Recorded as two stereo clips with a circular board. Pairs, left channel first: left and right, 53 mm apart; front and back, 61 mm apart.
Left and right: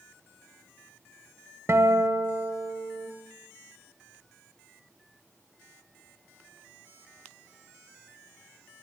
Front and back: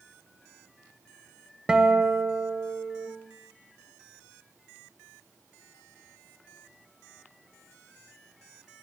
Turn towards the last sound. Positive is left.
turn(degrees=-105)